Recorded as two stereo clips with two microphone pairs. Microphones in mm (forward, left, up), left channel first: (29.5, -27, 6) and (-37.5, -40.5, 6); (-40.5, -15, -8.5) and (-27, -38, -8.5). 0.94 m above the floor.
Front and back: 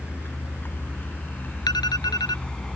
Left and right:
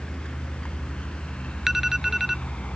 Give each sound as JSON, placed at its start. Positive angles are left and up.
{"t": 0.0, "sound": "a vehicle", "azimuth_deg": 70}
{"t": 1.7, "sound": "an alarm", "azimuth_deg": 15}